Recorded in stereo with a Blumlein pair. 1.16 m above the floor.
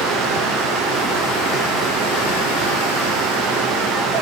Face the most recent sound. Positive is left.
turn(degrees=-25)